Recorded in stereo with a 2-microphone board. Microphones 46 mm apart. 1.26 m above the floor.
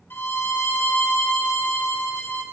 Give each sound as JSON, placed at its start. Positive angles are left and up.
{"t": 0.1, "sound": "a violin", "side_deg": 55, "distance_m": 0.8}